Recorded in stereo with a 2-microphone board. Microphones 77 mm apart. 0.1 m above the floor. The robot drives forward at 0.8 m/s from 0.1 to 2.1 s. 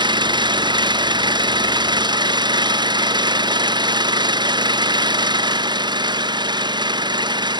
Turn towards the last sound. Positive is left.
turn(degrees=-70)  # may be behind; listen again after turning